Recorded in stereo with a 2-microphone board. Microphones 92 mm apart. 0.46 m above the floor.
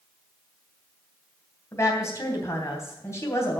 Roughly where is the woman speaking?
Left.